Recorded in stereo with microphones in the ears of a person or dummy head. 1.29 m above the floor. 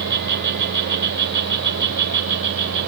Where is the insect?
50° right (ahead or behind), 3.5 m.